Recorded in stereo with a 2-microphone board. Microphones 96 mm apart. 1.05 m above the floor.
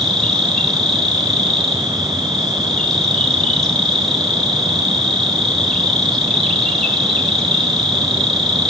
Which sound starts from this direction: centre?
An insect, at 0.0 s.